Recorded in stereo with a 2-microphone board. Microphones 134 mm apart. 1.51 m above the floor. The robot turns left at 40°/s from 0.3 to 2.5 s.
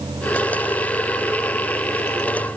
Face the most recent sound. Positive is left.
No sound to turn to.